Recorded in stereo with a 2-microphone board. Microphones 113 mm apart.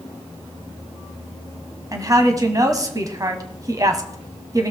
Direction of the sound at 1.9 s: 30° right (ahead or behind).